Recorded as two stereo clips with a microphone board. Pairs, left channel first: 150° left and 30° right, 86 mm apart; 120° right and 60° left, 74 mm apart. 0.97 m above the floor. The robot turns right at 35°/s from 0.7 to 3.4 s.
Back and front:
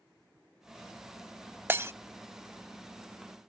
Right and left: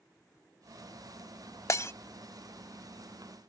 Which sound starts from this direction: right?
Breaking glass, at 1.7 s.